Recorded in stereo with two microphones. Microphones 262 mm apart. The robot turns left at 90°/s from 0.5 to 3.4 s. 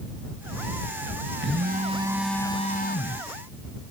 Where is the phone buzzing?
105° right; by 3.2 s 90° left.